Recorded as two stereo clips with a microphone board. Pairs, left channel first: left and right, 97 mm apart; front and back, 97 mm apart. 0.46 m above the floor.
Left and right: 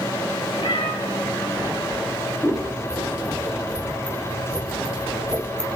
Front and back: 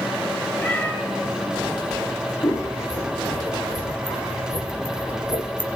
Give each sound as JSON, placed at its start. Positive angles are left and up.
{"t": 0.6, "sound": "a cat meowing", "azimuth_deg": 75, "distance_m": 1.7}
{"t": 2.4, "sound": "scissors", "azimuth_deg": 10, "distance_m": 1.4}